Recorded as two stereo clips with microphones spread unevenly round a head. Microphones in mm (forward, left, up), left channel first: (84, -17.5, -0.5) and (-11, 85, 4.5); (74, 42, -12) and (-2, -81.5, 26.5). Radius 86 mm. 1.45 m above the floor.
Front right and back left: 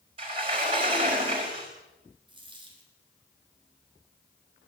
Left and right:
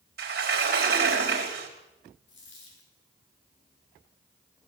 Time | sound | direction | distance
0.2 | a sliding door | 165° right | 4.5 m
2.3 | a dropped coin | 80° left | 6.5 m